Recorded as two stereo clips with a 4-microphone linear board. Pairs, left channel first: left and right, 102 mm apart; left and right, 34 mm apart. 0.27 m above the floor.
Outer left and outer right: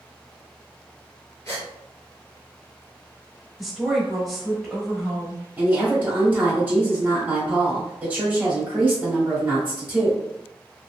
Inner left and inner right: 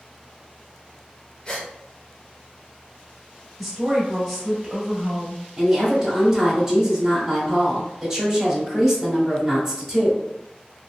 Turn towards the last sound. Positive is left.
turn(degrees=-20)  # may be behind; listen again after turning